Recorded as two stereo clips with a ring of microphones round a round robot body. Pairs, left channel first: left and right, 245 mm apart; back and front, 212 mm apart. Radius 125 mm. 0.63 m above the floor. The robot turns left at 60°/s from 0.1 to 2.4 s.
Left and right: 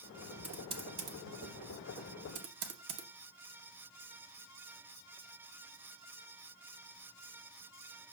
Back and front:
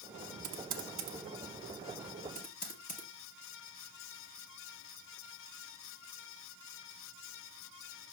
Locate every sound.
0.4 s typing on a keyboard: 5° right, 1.1 m; by 3.1 s 125° right, 1.1 m